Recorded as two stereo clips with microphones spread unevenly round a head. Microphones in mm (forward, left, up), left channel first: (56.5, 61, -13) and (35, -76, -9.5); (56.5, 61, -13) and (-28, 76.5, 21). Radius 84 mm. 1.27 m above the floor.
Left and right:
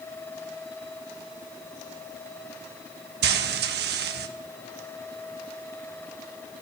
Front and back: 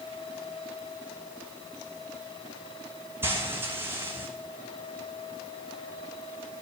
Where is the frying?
115° right, 1.2 m.